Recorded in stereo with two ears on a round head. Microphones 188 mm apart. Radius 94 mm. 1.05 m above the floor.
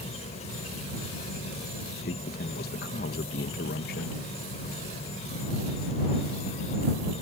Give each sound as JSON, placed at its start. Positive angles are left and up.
{"t": 0.0, "sound": "an insect", "side_deg": 30}
{"t": 2.0, "sound": "a man speaking", "side_deg": 45}